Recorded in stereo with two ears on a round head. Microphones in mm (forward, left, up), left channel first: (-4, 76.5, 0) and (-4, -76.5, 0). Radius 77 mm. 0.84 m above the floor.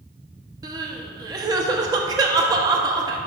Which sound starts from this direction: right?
Crying, at 0.6 s.